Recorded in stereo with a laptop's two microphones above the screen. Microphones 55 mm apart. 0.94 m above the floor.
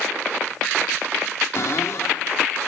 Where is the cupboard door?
60° left (ahead or behind), 1.8 m.